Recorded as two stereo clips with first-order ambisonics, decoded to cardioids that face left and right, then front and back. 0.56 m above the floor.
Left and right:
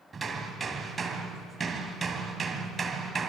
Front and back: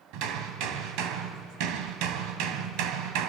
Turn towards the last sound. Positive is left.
turn(degrees=-160)